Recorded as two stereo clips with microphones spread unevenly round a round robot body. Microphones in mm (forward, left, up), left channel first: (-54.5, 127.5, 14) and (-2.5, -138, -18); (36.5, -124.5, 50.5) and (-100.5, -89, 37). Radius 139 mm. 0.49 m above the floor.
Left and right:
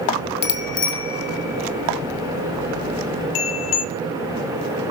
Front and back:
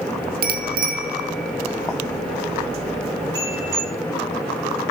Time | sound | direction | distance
0.4 | a bicycle bell | 155° left | 2.5 m